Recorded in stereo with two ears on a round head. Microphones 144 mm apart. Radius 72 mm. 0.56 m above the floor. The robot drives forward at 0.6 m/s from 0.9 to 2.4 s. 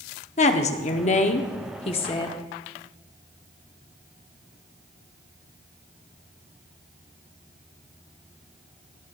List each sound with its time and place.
0.4 s a woman speaking: 45° left (ahead or behind), 0.9 m; by 2.4 s 30° left (ahead or behind), 1.1 m